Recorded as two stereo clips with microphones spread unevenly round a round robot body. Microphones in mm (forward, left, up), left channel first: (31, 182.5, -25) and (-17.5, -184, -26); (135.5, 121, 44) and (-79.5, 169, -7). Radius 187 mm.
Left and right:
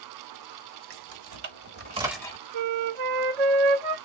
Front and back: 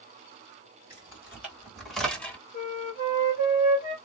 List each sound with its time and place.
0.9 s keys jangling: 115° right, 1.8 m; by 2.4 s 100° left, 0.9 m
2.5 s a flute: 85° right, 0.8 m